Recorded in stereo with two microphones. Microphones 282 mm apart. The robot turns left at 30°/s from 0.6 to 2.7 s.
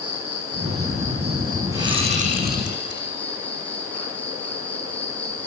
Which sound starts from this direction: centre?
A whoosh, at 1.7 s.